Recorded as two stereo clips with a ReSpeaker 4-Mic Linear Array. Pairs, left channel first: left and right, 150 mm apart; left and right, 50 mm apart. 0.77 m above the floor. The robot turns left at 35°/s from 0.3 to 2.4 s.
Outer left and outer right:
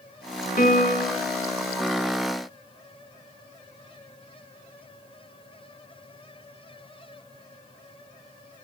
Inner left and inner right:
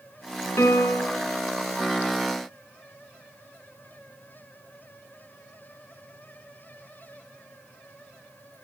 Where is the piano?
70° left (ahead or behind), 4 m; by 1.2 s 85° left, 4 m.